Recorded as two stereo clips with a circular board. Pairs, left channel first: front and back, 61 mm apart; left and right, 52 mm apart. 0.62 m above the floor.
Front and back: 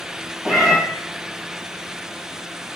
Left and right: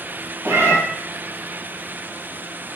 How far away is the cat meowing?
About 2 m.